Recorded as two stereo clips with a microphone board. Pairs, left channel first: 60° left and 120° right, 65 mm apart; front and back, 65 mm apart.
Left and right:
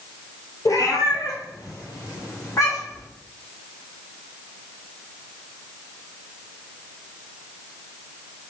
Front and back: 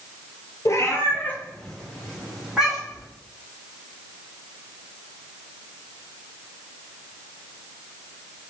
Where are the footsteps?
No footsteps in this recording.